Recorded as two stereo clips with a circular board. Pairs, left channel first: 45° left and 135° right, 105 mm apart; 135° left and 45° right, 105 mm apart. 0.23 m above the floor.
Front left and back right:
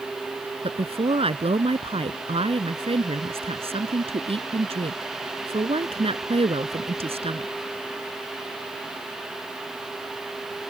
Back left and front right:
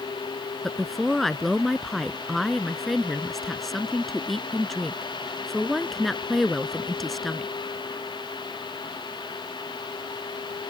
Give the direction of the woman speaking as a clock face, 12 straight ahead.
5 o'clock.